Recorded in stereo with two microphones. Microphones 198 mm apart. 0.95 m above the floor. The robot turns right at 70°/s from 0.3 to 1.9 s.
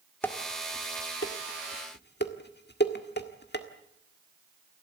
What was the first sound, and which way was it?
Dishes clattering, 10° left (ahead or behind).